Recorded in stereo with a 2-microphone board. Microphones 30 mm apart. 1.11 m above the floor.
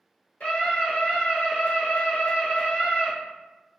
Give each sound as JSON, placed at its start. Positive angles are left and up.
{"t": 0.4, "sound": "a scream", "side_deg": 50, "distance_m": 1.4}